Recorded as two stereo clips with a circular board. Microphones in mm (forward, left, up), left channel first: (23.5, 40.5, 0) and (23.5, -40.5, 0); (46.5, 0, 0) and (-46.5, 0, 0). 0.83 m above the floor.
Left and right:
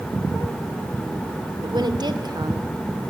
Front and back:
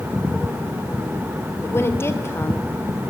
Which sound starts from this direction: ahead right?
A woman speaking, at 1.6 s.